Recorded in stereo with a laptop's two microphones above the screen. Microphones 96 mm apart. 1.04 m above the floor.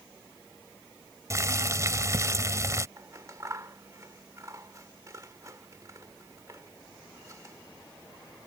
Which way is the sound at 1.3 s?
35° right (ahead or behind).